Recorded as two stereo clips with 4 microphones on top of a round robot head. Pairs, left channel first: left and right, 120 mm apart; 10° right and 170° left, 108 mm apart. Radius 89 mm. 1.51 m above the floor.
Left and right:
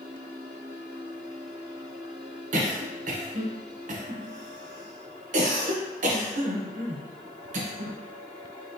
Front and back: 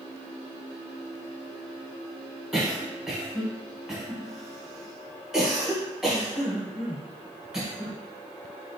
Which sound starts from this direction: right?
A cough, at 2.5 s.